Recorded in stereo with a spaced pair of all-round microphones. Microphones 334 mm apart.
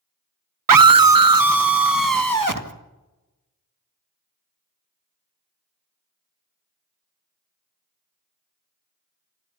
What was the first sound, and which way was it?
A scream, 75° right (ahead or behind).